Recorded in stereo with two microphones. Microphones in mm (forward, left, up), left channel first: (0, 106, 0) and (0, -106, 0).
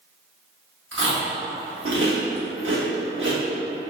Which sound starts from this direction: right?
Chewing, at 0.9 s.